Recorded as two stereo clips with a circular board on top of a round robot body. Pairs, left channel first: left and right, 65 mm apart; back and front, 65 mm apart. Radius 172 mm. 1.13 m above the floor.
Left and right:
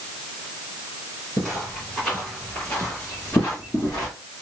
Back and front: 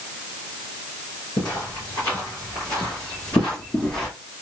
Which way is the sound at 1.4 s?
175° left.